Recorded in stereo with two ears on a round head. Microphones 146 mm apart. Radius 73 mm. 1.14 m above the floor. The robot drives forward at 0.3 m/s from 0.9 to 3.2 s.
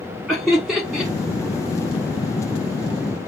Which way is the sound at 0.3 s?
Centre (ahead or behind).